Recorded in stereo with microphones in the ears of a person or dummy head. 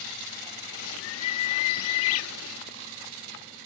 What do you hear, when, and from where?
0.7 s a bird: 75° left (ahead or behind)